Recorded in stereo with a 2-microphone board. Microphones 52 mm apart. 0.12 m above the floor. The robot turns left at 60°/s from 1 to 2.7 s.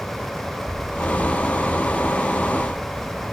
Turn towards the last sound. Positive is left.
turn(degrees=-120)